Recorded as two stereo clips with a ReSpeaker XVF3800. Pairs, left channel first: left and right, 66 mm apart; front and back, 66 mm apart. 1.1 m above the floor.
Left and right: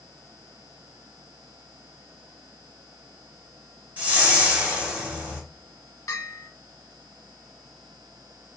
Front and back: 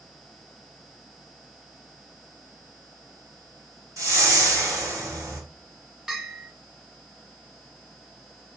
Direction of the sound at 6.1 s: 100° left.